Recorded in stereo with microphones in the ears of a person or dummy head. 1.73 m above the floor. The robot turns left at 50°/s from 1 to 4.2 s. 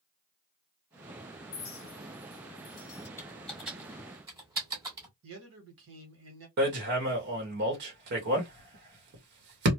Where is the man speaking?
75° right (ahead or behind), 1.2 m.